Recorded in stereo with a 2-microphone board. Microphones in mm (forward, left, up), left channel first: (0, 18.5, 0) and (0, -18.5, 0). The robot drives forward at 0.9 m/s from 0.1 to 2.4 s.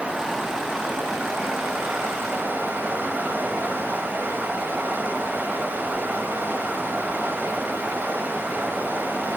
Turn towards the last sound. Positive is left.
turn(degrees=-65)  # may be behind; listen again after turning